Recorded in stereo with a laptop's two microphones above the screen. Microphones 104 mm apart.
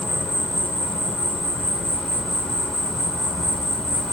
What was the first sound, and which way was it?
An insect, 5° left (ahead or behind).